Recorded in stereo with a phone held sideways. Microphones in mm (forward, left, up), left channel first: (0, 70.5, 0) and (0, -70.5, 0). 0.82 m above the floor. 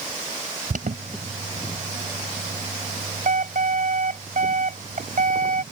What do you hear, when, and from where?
0.7 s an alarm: 70° right (ahead or behind)